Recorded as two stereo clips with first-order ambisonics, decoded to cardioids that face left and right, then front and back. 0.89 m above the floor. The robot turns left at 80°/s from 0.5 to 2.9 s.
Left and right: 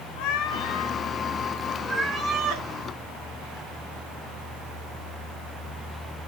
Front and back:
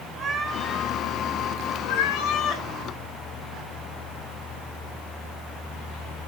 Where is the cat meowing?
110° left, 1.4 m; by 2.7 s 60° right, 1.4 m.